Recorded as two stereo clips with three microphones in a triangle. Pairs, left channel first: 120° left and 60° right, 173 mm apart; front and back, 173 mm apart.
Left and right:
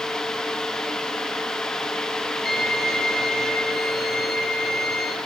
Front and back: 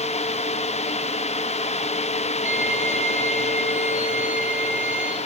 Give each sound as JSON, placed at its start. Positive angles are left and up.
{"t": 2.5, "sound": "a violin", "azimuth_deg": 135, "distance_m": 8.0}